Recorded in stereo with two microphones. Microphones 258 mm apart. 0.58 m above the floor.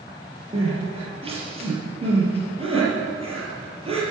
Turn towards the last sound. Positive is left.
turn(degrees=-20)  # may be behind; listen again after turning